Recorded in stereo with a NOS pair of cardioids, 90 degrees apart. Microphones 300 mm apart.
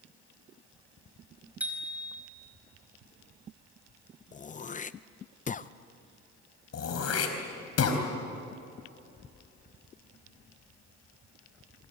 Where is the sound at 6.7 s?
55° left, 4 m.